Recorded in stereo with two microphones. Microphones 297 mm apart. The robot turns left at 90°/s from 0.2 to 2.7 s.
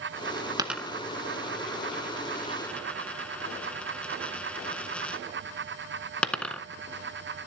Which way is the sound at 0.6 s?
15° right (ahead or behind).